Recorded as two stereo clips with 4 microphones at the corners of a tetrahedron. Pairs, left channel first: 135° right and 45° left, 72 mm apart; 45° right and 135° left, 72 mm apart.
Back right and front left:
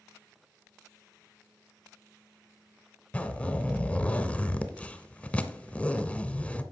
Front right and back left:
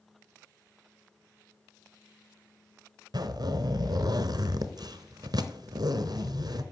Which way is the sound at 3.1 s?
155° left.